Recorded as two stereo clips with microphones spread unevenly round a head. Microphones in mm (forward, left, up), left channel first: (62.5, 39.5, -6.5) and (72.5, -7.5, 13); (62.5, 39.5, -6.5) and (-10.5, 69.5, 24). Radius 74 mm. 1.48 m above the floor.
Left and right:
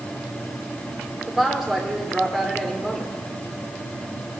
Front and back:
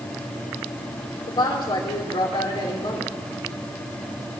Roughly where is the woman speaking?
Ahead.